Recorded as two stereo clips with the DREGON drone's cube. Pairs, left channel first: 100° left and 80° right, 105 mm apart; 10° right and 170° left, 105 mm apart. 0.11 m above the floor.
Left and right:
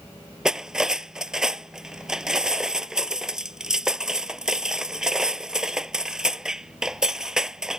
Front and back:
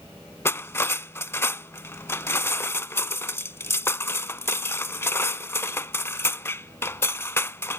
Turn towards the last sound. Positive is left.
turn(degrees=-5)